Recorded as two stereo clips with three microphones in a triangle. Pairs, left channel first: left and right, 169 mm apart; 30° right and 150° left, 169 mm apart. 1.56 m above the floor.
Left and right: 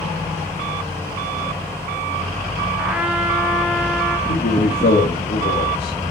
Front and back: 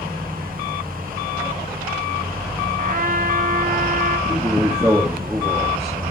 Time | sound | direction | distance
2.8 | a trumpet | 175° right | 1.3 m
4.3 | a man speaking | 75° left | 2 m